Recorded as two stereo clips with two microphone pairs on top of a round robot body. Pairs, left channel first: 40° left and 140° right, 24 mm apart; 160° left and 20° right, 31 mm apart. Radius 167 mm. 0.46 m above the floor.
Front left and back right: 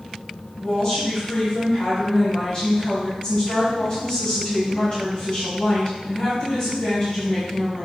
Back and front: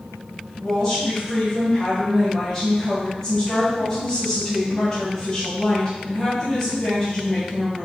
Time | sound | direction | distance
0.6 | a woman speaking | 85° left | 4 m